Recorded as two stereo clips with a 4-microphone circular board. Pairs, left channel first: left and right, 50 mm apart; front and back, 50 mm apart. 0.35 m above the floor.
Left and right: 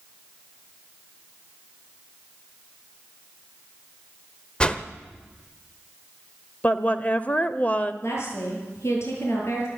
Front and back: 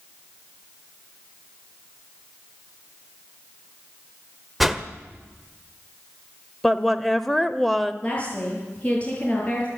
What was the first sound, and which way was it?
A whoosh, 100° left.